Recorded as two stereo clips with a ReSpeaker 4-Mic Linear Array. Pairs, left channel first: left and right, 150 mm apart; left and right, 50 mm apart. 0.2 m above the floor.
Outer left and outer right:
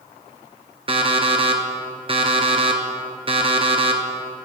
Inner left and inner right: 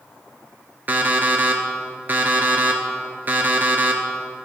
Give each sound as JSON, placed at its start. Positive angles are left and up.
{"t": 0.9, "sound": "an alarm clock", "side_deg": -40, "distance_m": 1.7}